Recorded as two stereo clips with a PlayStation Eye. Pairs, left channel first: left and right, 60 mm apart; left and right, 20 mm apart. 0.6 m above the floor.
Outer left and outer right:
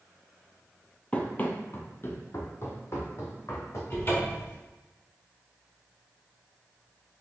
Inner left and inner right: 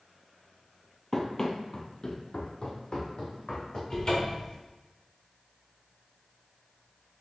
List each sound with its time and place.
1.1 s running footsteps: 25° left (ahead or behind), 0.6 m; by 3.8 s 55° left (ahead or behind), 1.6 m
3.9 s a cupboard door: 40° left (ahead or behind), 1.6 m